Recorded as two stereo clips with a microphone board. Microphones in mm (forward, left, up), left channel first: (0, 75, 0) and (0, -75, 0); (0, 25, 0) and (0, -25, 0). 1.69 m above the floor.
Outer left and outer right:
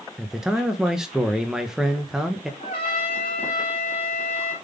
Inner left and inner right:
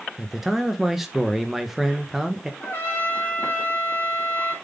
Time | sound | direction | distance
0.2 | a man speaking | 5° right (ahead or behind) | 1.2 m
2.6 | a trumpet | 45° left (ahead or behind) | 3.5 m